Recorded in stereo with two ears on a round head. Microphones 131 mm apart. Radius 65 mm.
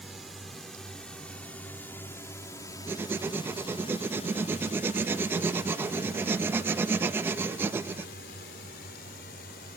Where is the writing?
15° right (ahead or behind).